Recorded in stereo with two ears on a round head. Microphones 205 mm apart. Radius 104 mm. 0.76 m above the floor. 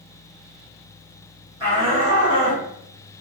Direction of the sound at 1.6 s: 25° right (ahead or behind).